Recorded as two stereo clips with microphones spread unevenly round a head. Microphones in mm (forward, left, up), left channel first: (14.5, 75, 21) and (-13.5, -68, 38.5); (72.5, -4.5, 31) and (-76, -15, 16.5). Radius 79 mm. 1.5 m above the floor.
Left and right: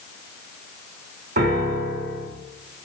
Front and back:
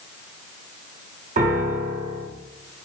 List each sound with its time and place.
1.4 s a piano: 135° right, 1.0 m